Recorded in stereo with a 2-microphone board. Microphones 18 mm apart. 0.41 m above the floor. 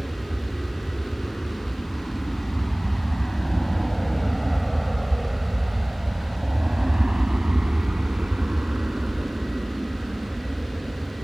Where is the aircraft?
55° left (ahead or behind); by 11.2 s 80° right.